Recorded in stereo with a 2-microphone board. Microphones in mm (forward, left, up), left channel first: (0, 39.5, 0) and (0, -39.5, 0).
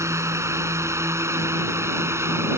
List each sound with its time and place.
0.0 s a drone: 40° right (ahead or behind); by 2.6 s 35° right (ahead or behind)